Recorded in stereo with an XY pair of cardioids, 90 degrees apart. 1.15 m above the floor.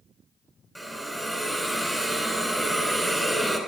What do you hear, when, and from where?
0.8 s a hiss: 10° right, 4 m